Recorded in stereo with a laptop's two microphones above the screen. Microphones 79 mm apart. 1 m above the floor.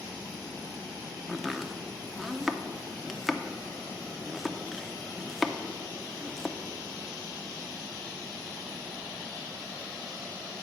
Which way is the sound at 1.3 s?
Centre (ahead or behind).